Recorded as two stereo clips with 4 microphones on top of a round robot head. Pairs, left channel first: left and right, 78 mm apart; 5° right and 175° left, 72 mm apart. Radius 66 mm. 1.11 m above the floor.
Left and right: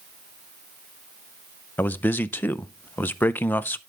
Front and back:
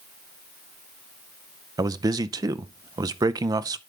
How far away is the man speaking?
About 0.5 m.